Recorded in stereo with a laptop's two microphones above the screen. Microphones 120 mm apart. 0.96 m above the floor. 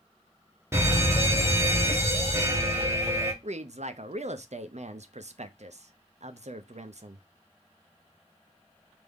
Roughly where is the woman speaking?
Right.